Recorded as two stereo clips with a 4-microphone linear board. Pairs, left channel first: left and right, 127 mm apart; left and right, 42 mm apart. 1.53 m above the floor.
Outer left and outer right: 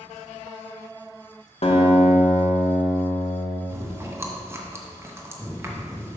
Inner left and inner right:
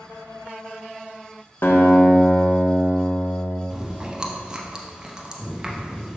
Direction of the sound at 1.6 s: 55° left (ahead or behind).